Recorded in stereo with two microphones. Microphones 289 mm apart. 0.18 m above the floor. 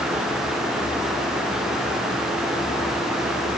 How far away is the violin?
I don't hear a violin.